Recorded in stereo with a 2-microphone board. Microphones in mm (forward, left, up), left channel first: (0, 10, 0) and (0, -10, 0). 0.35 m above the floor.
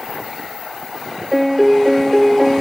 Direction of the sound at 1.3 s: 10° right (ahead or behind).